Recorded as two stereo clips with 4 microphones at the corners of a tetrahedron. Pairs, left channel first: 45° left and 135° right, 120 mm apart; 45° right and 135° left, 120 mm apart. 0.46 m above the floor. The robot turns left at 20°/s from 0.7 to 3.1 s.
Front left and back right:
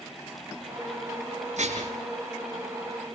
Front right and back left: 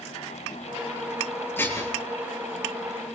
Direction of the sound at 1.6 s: 115° right.